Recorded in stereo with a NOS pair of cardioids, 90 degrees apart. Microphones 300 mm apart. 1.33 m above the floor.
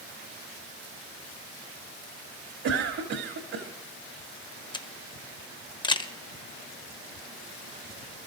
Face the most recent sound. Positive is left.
turn(degrees=15)